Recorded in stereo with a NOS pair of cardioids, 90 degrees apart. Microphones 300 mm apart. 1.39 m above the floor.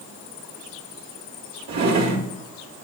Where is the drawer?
65° right, 1.7 m.